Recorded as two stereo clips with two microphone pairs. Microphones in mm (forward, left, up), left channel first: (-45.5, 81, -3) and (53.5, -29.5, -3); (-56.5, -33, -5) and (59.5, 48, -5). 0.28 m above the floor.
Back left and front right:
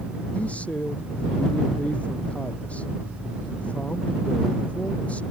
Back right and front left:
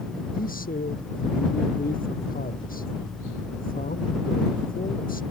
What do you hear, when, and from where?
0.3 s a man speaking: 145° right